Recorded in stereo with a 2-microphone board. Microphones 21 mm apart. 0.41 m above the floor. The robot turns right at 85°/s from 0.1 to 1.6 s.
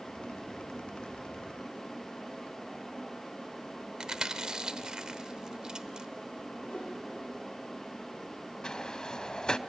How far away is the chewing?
About 0.8 m.